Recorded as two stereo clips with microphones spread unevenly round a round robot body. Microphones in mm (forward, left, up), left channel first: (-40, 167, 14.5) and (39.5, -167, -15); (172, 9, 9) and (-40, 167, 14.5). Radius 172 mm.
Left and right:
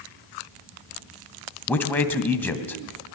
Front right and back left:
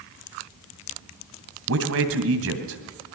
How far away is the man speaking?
About 2.5 m.